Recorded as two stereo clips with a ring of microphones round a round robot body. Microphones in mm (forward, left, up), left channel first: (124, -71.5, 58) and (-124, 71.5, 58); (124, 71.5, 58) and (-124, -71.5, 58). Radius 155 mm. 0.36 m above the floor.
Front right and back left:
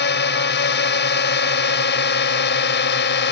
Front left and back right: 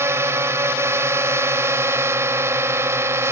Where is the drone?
70° right.